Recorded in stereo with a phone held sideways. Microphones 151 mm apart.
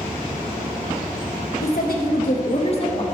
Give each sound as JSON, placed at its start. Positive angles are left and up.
{"t": 1.6, "sound": "a woman speaking", "side_deg": 80, "distance_m": 1.3}